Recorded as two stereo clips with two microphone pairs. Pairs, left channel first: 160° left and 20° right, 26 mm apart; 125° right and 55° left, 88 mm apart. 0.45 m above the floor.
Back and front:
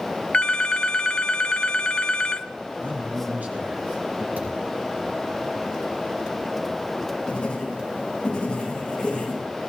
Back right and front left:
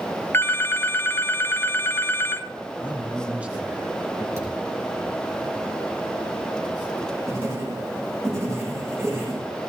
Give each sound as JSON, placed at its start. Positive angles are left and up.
{"t": 0.3, "sound": "a phone ringing", "azimuth_deg": -175, "distance_m": 0.5}
{"t": 2.8, "sound": "a man speaking", "azimuth_deg": -20, "distance_m": 4.5}
{"t": 4.4, "sound": "a thud", "azimuth_deg": -5, "distance_m": 5.5}
{"t": 7.3, "sound": "writing", "azimuth_deg": 105, "distance_m": 8.5}